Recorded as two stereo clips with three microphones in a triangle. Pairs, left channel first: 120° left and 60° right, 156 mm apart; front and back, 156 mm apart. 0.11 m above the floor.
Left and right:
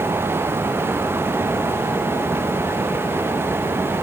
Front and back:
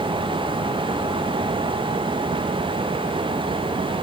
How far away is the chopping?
No chopping in this recording.